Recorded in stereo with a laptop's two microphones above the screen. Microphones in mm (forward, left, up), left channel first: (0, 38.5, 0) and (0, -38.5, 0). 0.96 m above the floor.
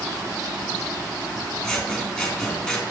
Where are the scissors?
15° left (ahead or behind), 2 m.